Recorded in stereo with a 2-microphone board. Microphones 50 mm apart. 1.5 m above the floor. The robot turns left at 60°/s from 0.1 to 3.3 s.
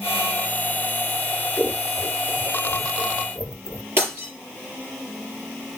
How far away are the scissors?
About 1.0 m.